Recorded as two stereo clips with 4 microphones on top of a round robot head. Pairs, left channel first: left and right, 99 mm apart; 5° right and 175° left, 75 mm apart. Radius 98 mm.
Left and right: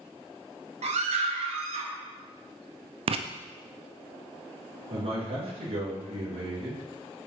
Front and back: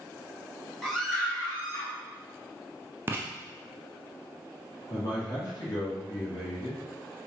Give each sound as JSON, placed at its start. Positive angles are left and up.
{"t": 0.8, "sound": "a scream", "azimuth_deg": -95, "distance_m": 1.6}
{"t": 3.1, "sound": "writing", "azimuth_deg": -120, "distance_m": 0.5}
{"t": 4.9, "sound": "a man speaking", "azimuth_deg": -55, "distance_m": 3.0}